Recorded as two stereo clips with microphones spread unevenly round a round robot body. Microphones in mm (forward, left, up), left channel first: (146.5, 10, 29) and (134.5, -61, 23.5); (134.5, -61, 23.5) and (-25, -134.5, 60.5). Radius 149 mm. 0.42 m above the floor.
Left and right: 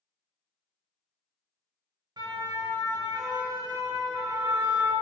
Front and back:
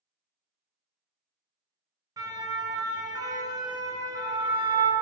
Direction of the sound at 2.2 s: 85° right.